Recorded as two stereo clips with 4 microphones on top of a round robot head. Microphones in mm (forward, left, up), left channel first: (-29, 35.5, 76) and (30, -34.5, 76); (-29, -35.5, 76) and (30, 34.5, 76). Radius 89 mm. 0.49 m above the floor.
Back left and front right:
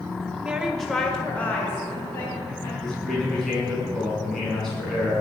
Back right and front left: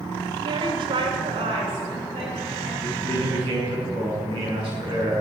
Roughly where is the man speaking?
Ahead left.